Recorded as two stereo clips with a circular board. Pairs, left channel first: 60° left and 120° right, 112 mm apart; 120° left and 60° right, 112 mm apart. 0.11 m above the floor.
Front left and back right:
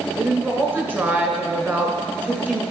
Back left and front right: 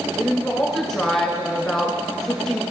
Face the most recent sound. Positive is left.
turn(degrees=-160)